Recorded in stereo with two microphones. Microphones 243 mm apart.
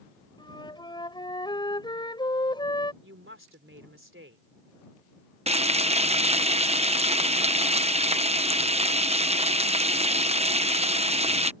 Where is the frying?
25° right (ahead or behind).